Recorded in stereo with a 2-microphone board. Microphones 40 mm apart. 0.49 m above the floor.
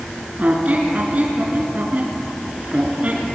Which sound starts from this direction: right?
A squeak, at 0.4 s.